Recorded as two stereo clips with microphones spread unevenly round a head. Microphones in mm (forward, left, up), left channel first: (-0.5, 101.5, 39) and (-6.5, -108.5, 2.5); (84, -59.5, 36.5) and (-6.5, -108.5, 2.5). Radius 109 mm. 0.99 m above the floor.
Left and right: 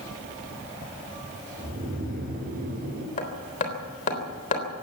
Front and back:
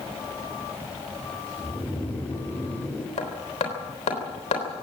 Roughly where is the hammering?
Ahead left.